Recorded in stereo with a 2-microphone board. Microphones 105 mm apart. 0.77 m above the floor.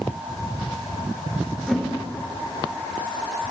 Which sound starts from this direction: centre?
A whoosh, at 1.7 s.